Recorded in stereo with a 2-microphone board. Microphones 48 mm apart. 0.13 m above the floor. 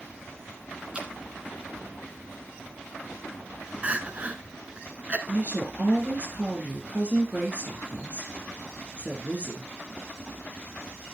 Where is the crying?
30° right (ahead or behind), 0.9 m.